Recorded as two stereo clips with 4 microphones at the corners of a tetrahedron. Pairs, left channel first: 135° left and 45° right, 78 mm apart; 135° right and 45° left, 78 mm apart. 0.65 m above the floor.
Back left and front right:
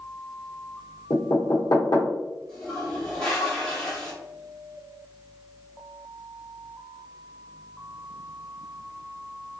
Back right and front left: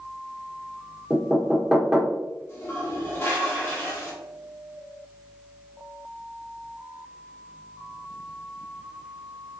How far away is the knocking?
About 0.9 m.